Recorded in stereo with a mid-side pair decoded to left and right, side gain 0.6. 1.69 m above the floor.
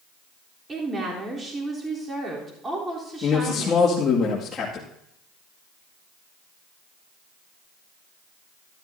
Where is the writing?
No writing in this recording.